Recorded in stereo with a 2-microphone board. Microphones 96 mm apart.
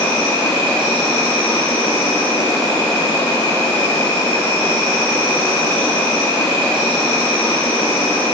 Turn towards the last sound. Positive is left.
turn(degrees=30)  # may be behind; listen again after turning